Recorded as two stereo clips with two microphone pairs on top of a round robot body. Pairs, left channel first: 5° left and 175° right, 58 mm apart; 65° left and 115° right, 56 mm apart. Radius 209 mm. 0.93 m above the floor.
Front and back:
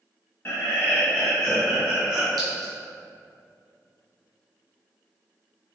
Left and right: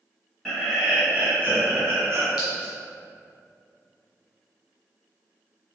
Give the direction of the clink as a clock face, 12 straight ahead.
6 o'clock.